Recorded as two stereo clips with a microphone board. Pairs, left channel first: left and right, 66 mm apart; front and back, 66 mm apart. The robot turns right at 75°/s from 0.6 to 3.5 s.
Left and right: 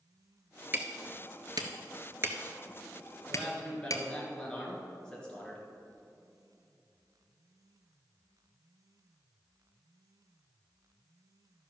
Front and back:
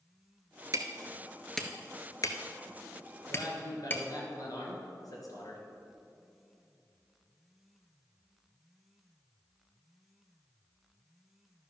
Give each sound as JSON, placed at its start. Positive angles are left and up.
{"t": 0.7, "sound": "hammering", "azimuth_deg": -150, "distance_m": 0.9}
{"t": 3.3, "sound": "a man speaking", "azimuth_deg": 0, "distance_m": 2.5}